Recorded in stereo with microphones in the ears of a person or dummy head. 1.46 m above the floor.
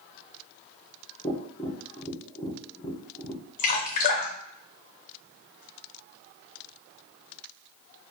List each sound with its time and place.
1.2 s tapping: 25° left (ahead or behind), 0.8 m
3.6 s dripping: 45° left (ahead or behind), 0.6 m